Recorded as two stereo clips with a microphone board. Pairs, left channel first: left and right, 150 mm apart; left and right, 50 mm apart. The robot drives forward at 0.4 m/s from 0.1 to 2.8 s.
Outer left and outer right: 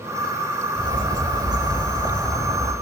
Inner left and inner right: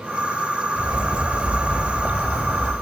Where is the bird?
30° right (ahead or behind), 1.1 m; by 2.7 s 20° right (ahead or behind), 1.3 m.